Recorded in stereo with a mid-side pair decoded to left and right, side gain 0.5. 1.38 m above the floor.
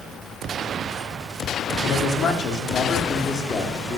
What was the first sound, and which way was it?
A man speaking, 60° left.